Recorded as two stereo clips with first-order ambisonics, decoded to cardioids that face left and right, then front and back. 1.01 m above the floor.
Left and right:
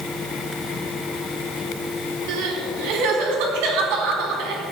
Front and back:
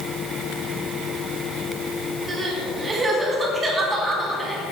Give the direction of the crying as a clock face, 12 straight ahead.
3 o'clock.